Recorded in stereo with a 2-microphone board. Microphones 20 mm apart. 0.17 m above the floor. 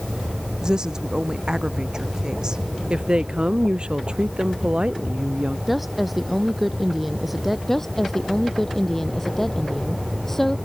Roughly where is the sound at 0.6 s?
Right.